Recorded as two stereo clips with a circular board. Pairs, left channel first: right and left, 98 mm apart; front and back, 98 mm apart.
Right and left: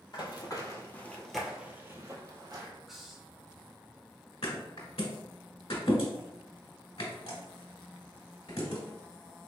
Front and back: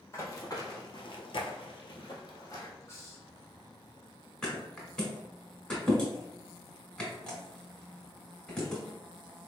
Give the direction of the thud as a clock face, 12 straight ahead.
3 o'clock.